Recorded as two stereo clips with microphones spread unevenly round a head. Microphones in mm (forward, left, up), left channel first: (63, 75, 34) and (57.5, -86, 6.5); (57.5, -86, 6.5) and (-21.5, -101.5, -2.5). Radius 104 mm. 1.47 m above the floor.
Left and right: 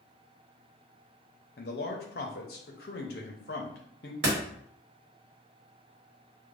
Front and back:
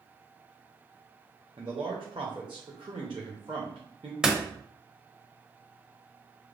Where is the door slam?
85° right, 1.1 m.